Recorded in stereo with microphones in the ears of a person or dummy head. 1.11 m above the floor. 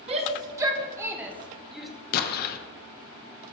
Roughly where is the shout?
Right.